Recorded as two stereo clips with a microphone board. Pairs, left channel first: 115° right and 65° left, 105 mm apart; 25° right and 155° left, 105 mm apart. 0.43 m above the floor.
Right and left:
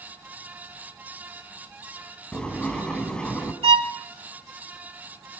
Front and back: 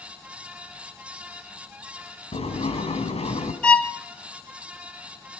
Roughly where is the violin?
Ahead left.